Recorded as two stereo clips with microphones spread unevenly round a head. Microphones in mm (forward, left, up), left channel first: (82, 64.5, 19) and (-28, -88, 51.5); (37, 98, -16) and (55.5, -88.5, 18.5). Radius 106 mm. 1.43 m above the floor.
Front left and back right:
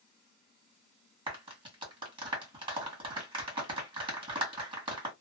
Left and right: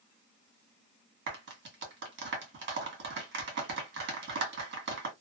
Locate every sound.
1.3 s a clap: 60° right, 1.8 m